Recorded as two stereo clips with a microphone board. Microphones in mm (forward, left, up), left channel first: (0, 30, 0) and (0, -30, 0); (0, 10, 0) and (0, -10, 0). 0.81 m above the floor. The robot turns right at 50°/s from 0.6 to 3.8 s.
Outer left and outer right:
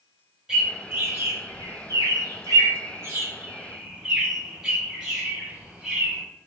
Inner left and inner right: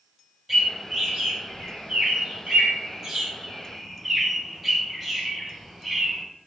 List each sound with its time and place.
0.5 s a bird: 10° right (ahead or behind), 3.5 m